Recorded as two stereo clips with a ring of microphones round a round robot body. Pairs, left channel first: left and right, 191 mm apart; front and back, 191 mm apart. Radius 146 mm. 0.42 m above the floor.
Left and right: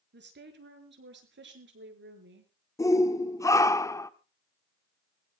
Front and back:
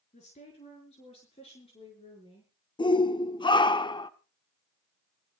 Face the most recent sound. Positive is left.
turn(degrees=35)